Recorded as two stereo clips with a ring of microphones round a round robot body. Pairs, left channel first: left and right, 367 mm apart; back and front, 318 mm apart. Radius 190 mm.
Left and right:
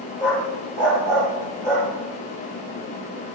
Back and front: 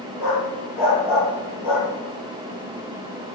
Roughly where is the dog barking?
Behind.